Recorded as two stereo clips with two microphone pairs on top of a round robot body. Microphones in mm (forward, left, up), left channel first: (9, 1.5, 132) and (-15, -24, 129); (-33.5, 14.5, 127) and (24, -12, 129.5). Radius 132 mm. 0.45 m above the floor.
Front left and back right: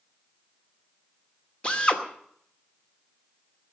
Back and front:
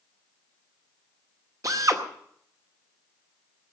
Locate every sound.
1.6 s a drill: 15° right, 2.5 m